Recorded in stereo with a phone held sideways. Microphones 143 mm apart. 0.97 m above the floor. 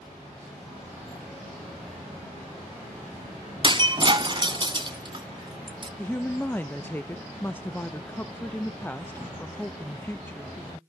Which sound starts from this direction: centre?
A woman speaking, at 6.0 s.